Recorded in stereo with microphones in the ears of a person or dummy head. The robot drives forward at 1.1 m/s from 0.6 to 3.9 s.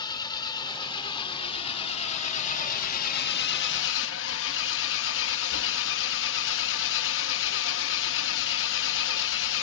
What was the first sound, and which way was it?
An engine running, 25° left (ahead or behind).